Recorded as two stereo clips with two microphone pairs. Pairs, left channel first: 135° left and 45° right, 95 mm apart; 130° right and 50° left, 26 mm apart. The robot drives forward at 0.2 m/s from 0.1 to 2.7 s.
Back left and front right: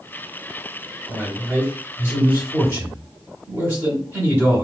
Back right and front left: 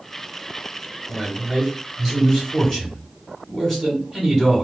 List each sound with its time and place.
1.1 s a man speaking: 60° right, 1.4 m; by 4.6 s 90° right, 1.4 m